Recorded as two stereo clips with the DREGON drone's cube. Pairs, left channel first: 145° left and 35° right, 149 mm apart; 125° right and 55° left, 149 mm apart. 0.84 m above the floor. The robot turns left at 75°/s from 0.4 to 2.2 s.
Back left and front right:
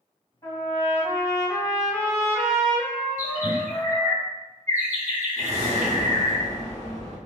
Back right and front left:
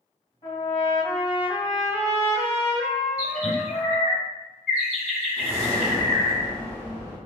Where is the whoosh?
50° right, 1.1 m.